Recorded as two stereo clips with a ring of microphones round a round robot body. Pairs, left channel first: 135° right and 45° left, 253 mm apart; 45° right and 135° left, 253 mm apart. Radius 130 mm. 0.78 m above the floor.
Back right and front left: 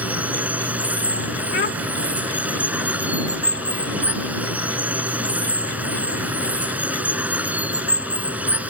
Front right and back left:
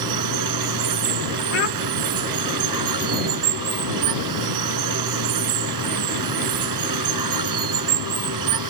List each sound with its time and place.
0.0 s running water: 130° left
1.5 s a child speaking: 85° right